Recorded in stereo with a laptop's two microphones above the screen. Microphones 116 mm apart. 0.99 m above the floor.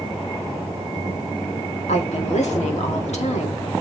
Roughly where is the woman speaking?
Left.